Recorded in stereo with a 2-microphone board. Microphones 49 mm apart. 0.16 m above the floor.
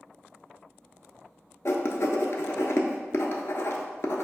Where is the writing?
60° left (ahead or behind), 0.5 m.